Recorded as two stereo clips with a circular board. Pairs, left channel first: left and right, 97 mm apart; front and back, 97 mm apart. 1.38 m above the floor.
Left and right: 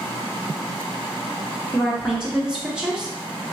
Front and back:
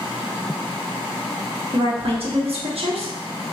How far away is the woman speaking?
About 1.2 m.